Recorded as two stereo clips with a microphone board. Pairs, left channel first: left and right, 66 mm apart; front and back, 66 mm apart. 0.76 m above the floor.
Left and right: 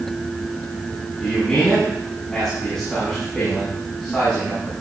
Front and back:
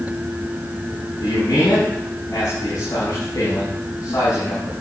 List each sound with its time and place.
1.2 s a man speaking: 10° left, 7 m